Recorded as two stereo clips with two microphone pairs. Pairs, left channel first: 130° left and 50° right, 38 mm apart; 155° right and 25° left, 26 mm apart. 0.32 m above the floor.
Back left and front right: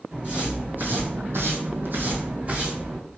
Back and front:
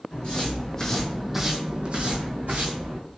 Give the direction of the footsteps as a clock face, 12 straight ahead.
4 o'clock.